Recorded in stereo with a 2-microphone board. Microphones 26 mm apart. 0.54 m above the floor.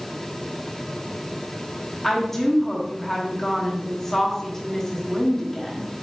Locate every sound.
2.0 s a woman speaking: 15° left (ahead or behind), 1.0 m